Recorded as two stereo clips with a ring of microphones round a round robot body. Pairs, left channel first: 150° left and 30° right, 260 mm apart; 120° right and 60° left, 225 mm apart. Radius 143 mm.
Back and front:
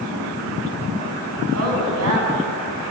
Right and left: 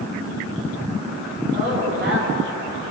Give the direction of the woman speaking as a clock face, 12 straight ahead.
12 o'clock.